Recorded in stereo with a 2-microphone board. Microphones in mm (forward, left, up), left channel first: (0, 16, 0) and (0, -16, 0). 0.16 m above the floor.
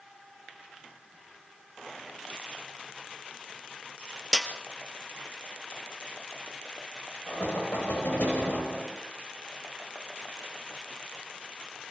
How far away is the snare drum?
About 2.0 m.